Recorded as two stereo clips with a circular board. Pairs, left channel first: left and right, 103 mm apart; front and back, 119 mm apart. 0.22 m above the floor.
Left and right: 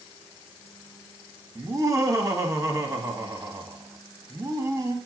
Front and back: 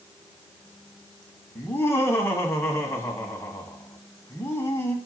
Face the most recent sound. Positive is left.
turn(degrees=-55)